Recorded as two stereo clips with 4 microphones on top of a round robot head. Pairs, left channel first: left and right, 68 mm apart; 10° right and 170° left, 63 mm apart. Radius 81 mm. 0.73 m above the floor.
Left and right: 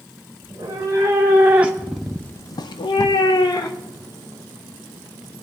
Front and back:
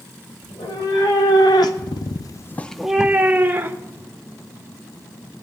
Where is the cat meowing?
35° right, 2 m; by 4.0 s 120° left, 1.7 m.